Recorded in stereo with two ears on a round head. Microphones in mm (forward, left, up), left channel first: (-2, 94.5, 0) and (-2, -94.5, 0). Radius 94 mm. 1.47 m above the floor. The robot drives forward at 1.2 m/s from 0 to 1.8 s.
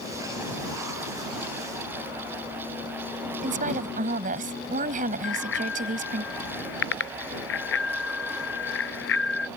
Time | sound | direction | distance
3.4 | a woman speaking | 40° right (ahead or behind) | ?
5.2 | a bicycle bell | 60° left (ahead or behind) | ?